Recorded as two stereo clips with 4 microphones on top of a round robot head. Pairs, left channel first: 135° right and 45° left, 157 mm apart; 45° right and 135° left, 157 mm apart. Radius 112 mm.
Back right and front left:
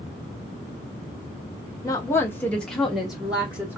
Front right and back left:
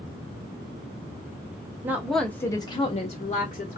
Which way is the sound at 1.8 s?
165° right.